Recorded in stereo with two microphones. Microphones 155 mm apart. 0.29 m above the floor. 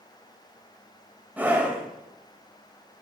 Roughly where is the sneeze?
I don't hear a sneeze.